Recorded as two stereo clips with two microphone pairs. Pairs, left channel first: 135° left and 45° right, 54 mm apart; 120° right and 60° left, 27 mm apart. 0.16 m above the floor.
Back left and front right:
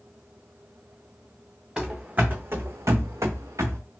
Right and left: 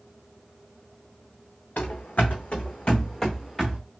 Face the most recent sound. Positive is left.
turn(degrees=-30)